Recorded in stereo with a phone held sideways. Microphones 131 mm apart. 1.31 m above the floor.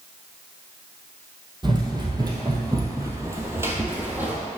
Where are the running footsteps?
35° right (ahead or behind), 1.6 m; by 4.4 s 10° right (ahead or behind), 1.6 m.